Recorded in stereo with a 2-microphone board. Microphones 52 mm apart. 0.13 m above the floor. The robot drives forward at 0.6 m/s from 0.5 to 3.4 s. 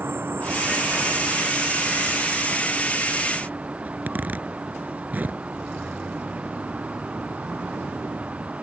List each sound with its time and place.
0.0 s an insect: 45° right (ahead or behind); by 8.6 s 25° right (ahead or behind)
3.9 s a zipper: 35° right (ahead or behind)